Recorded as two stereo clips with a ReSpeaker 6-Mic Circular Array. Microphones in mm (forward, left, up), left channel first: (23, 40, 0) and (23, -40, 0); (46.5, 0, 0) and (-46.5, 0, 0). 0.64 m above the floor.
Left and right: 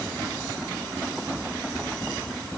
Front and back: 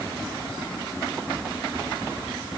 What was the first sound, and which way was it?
Only background noise.